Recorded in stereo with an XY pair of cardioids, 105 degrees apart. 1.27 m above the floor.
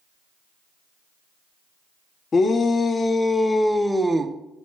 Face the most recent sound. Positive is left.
turn(degrees=-35)